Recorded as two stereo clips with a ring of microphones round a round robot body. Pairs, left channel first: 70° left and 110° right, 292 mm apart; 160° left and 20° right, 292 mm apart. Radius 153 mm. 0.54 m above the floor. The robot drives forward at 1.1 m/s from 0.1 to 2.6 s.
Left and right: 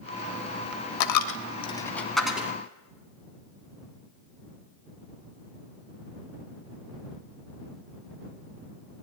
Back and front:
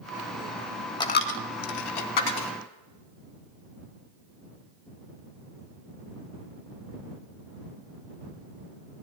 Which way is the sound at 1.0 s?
80° left.